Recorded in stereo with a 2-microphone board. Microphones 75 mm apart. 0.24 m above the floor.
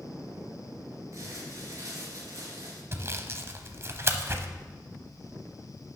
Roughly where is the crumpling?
Right.